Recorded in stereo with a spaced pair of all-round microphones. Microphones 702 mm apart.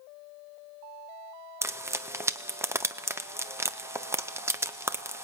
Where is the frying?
5° right (ahead or behind), 0.6 m.